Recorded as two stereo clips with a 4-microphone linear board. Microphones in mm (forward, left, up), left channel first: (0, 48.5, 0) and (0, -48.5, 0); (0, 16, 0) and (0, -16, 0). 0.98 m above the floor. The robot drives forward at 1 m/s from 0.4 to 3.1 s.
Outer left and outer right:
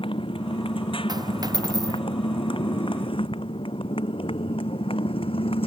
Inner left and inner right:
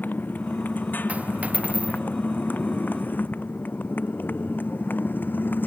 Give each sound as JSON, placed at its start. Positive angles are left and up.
{"t": 0.0, "sound": "a motorcycle", "side_deg": 70}
{"t": 1.1, "sound": "a dropped coin", "side_deg": -45}